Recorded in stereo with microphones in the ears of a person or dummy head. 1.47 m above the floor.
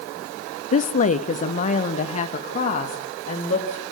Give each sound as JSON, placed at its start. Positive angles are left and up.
{"t": 0.7, "sound": "a woman speaking", "side_deg": 45, "distance_m": 0.6}